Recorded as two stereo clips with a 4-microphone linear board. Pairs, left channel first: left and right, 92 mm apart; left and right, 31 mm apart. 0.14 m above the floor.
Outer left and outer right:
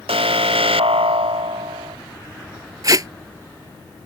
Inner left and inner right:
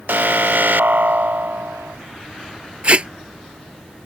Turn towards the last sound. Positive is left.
turn(degrees=-40)  # may be behind; listen again after turning